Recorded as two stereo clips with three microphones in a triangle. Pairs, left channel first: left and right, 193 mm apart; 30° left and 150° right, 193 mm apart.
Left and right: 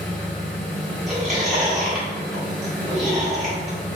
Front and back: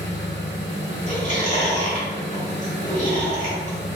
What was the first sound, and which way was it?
An engine running, straight ahead.